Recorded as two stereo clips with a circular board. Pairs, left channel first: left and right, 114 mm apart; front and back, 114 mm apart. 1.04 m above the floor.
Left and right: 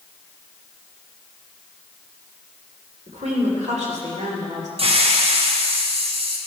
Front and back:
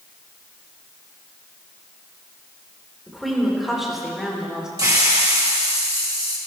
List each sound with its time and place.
3.1 s a woman speaking: 90° right, 3.5 m; by 4.7 s 95° right, 2.5 m
4.8 s a hiss: 120° right, 1.6 m